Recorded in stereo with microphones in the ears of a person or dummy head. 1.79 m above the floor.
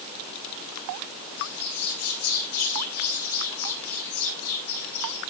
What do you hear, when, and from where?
1.4 s a bird: 50° left (ahead or behind), 6 m